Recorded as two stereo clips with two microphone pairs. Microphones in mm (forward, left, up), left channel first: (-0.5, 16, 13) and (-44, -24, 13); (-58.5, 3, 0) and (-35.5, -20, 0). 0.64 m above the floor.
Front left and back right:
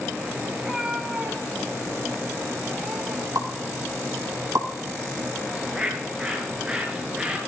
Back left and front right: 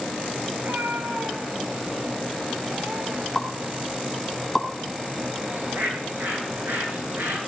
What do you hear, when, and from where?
0.6 s a cat meowing: 60° right, 1.8 m; by 3.6 s 65° right, 4.5 m
3.4 s a pop: 150° right, 2.5 m
5.5 s a bird: 55° right, 8.5 m